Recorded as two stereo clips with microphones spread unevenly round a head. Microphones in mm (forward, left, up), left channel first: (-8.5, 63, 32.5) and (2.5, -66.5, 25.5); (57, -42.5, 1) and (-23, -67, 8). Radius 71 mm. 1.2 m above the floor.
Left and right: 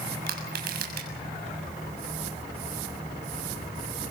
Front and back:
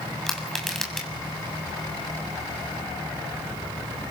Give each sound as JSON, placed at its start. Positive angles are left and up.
{"t": 0.3, "sound": "crushing", "azimuth_deg": -70, "distance_m": 6.5}